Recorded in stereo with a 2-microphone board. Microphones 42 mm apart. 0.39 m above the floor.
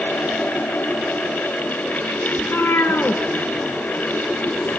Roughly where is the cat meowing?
Left.